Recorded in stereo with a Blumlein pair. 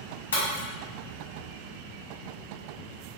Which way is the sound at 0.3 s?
65° left.